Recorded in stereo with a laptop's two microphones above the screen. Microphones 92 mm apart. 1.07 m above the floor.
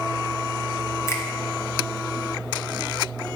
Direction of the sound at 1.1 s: 30° left (ahead or behind).